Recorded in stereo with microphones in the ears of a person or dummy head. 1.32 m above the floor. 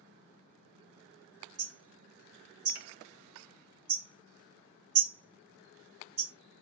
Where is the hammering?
35° right (ahead or behind), 2.5 m.